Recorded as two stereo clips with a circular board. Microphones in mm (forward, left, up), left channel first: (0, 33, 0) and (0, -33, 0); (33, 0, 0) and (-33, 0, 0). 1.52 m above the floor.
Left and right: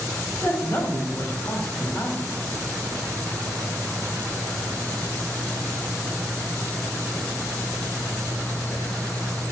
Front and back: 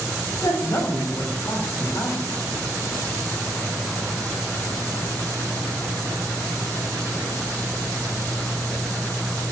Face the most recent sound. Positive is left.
turn(degrees=50)